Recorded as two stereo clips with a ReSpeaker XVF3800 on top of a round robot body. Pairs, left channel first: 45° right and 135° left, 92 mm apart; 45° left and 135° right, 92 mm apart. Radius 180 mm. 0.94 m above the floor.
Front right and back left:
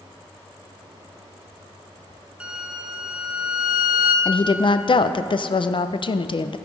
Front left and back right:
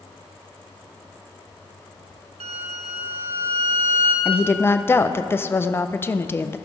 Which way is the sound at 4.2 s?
20° right.